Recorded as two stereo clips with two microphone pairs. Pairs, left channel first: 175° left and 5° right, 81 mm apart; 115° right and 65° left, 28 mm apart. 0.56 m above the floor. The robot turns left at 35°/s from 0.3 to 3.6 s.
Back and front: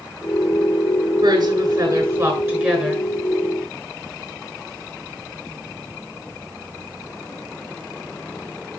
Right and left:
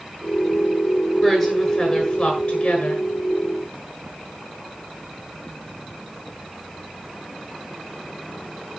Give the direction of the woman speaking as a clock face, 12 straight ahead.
1 o'clock.